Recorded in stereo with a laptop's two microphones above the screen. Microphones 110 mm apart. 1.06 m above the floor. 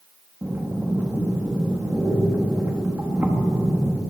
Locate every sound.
0.4 s breathing: 20° right (ahead or behind), 1.3 m